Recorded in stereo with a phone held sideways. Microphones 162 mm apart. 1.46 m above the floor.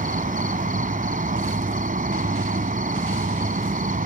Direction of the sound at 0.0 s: 60° right (ahead or behind).